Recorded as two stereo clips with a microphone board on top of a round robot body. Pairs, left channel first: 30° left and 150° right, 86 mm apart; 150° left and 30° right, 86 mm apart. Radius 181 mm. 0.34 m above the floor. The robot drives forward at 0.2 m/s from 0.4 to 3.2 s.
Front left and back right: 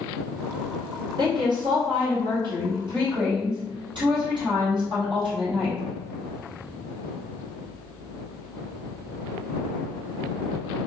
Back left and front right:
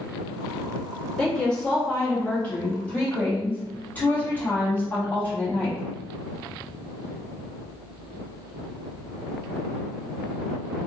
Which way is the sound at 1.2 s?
130° right.